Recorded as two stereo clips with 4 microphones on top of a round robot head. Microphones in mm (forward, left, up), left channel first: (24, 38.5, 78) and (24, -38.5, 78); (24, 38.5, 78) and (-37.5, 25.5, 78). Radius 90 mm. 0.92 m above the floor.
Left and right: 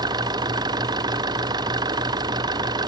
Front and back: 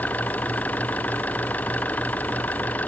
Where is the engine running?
60° right.